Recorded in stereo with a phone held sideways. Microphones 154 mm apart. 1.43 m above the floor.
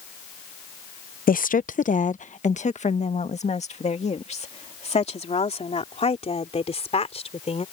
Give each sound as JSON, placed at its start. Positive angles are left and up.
{"t": 1.3, "sound": "a woman speaking", "side_deg": 75}